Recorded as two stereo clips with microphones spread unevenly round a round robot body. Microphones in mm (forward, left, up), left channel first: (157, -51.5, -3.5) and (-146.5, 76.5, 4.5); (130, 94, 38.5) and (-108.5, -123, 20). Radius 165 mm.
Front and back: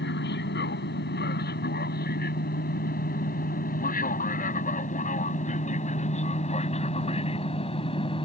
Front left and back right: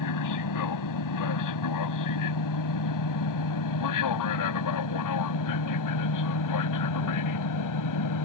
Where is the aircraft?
30° left; by 8.3 s 50° left.